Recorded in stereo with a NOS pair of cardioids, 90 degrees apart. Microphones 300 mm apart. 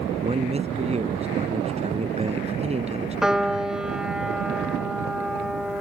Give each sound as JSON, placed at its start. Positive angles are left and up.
{"t": 0.2, "sound": "a man speaking", "azimuth_deg": -20}
{"t": 3.2, "sound": "a piano", "azimuth_deg": 0}